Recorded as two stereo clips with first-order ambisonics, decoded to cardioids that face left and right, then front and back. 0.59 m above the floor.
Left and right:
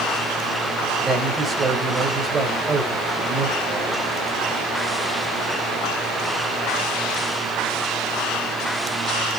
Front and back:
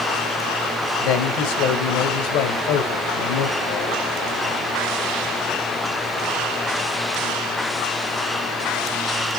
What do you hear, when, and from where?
1.0 s a man speaking: 15° right, 2 m